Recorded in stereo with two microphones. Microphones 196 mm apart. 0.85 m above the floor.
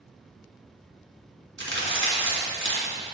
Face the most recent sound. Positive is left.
turn(degrees=-80)